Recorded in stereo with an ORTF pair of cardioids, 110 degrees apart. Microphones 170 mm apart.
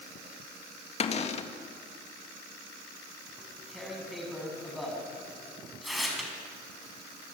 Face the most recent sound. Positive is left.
turn(degrees=0)